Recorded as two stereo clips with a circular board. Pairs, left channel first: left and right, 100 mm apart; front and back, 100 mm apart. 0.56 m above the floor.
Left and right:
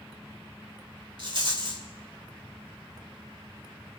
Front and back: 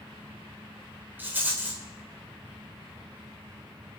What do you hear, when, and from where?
1.2 s a rattle: 110° right, 2.5 m